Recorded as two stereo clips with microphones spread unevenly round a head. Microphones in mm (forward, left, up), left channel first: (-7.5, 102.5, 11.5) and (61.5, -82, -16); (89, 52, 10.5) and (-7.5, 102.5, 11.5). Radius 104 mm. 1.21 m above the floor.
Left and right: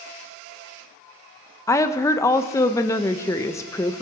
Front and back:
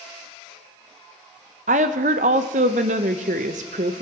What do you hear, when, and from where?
1.7 s a woman speaking: 175° right, 0.6 m